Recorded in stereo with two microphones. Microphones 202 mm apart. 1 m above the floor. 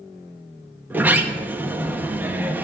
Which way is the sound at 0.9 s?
10° right (ahead or behind).